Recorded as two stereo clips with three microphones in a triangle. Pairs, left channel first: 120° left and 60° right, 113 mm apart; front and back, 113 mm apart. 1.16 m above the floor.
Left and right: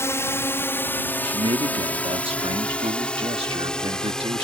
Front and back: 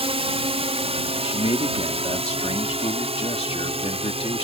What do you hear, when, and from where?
0.0 s a drone: straight behind; by 4.5 s 155° right
1.2 s a man speaking: 30° right